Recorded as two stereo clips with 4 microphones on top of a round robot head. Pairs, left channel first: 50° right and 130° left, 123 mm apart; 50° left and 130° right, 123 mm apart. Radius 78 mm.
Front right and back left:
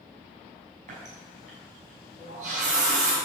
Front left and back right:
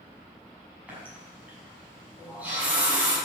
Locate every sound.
0.9 s a running tap: 150° left, 6.5 m